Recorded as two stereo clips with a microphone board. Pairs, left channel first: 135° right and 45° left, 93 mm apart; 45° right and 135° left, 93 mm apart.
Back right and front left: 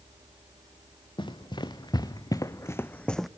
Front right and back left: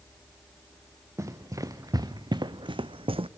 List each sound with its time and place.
1.2 s running footsteps: 165° right, 1.7 m; by 3.3 s 135° left, 0.7 m